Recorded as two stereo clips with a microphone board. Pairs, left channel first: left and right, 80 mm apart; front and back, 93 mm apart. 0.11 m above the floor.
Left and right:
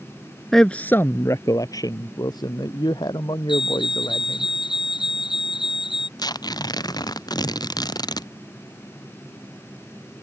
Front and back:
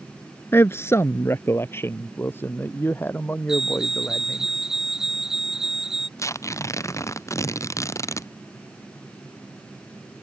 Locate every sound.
0.5 s a man speaking: 10° left; by 4.5 s 70° left
3.5 s a fire alarm: 95° left
6.2 s tearing paper: 55° left